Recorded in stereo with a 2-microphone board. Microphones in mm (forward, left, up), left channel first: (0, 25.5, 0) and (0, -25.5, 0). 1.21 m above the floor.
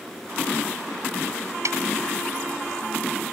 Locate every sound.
1.6 s a snare drum: 75° right (ahead or behind)